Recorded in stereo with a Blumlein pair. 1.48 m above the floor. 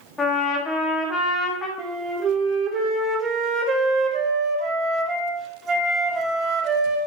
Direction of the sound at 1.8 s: 25° right.